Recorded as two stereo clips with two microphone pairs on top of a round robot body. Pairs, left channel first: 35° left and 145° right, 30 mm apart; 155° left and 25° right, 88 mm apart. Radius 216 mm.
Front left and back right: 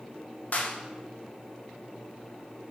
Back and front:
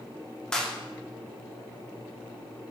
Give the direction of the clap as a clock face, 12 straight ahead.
10 o'clock.